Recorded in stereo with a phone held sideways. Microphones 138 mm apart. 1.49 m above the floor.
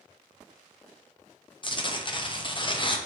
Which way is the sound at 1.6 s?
35° left (ahead or behind).